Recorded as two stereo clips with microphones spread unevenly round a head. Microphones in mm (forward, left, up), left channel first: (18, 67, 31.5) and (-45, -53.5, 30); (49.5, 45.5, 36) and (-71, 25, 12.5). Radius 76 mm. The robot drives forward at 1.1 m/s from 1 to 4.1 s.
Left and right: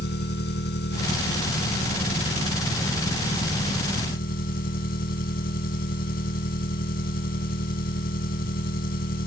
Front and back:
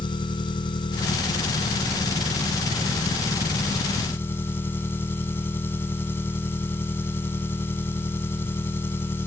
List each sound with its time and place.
0.0 s an engine running: 60° left; by 9.3 s 80° left